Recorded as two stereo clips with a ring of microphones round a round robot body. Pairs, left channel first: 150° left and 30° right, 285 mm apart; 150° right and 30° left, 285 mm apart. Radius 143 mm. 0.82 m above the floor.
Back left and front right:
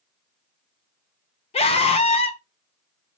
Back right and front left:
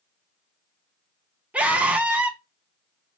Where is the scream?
110° left, 0.7 m.